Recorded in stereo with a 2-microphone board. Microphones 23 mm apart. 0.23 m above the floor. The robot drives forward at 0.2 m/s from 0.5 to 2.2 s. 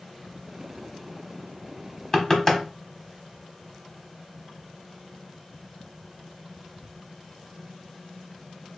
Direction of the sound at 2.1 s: 25° left (ahead or behind).